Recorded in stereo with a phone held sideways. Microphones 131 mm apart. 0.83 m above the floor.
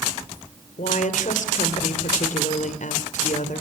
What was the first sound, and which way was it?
A woman speaking, 75° left (ahead or behind).